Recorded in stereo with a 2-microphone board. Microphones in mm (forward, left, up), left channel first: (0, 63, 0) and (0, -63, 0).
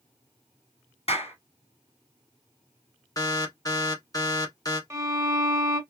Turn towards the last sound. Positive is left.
turn(degrees=-25)  # may be behind; listen again after turning